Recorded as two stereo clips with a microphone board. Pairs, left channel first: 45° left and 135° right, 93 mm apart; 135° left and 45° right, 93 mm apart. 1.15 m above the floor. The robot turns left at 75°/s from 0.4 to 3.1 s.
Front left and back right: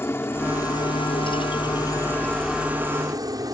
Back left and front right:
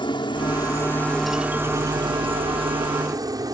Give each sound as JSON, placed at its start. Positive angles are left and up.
{"t": 0.0, "sound": "a helicopter", "azimuth_deg": 110}